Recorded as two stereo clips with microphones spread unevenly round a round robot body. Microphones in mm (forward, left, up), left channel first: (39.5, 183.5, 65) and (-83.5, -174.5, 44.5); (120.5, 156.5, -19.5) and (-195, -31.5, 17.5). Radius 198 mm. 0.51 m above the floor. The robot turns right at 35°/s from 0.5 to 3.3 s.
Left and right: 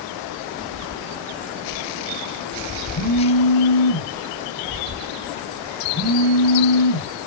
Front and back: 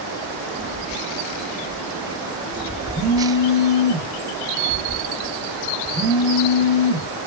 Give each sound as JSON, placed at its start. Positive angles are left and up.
{"t": 2.9, "sound": "a phone buzzing", "azimuth_deg": 115, "distance_m": 6.0}